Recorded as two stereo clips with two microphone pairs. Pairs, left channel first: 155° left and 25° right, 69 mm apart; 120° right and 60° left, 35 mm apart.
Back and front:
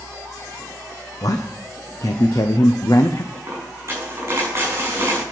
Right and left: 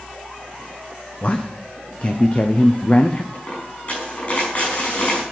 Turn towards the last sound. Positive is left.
turn(degrees=-75)